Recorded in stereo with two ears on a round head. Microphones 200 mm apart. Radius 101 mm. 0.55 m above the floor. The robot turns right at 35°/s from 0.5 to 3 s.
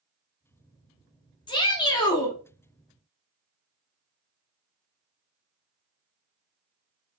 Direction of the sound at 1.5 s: 20° left (ahead or behind).